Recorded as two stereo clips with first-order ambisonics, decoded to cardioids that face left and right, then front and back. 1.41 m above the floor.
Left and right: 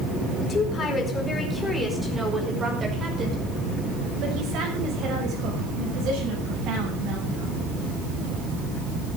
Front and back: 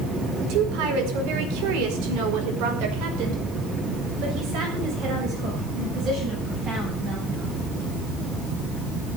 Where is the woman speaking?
155° left, 4.5 m; by 7.7 s 125° right, 11 m.